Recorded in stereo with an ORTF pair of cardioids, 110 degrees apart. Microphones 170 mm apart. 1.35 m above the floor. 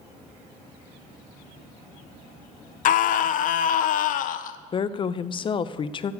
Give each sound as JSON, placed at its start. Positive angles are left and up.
{"t": 2.9, "sound": "a scream", "azimuth_deg": 60, "distance_m": 0.8}
{"t": 4.7, "sound": "a woman speaking", "azimuth_deg": 30, "distance_m": 0.6}